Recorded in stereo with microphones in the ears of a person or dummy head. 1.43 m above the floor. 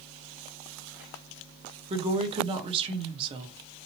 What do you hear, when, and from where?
1.9 s a woman speaking: 30° right (ahead or behind), 0.9 m